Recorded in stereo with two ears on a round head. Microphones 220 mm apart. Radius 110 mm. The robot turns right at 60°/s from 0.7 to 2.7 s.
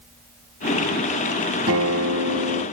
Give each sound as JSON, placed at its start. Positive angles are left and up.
{"t": 1.7, "sound": "a guitar", "azimuth_deg": -115, "distance_m": 2.5}